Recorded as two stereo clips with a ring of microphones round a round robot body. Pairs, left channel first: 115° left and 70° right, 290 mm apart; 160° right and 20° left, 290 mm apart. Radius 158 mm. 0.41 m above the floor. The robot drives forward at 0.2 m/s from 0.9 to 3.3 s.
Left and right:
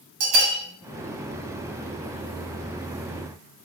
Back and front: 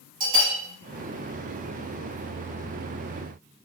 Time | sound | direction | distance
0.2 | a bell | 50° right | 0.6 m